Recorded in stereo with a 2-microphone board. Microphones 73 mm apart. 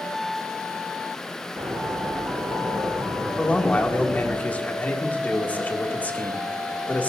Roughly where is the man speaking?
Left.